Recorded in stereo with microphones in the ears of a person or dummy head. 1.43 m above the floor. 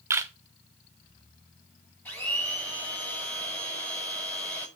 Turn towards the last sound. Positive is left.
turn(degrees=10)  # may be behind; listen again after turning